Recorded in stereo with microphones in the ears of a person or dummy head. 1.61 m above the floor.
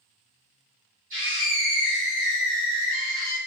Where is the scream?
35° right (ahead or behind), 2 m.